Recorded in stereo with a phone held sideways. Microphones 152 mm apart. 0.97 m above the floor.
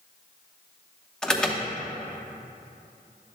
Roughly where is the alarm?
Centre.